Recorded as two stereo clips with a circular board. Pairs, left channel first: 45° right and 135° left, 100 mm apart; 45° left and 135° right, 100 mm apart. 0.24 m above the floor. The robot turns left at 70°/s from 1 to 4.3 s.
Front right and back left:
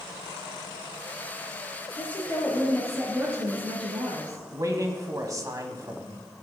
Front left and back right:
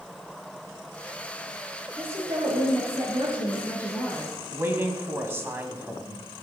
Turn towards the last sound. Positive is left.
turn(degrees=170)